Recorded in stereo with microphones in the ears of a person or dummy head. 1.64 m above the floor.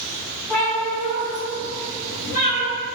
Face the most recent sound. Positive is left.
turn(degrees=60)  # may be behind; listen again after turning